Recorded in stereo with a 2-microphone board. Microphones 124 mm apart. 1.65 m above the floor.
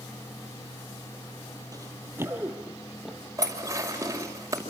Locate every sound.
1.7 s running footsteps: 30° right (ahead or behind), 2.5 m; by 3.2 s centre (ahead or behind), 2.5 m
3.4 s dishes clattering: 25° right (ahead or behind), 5.5 m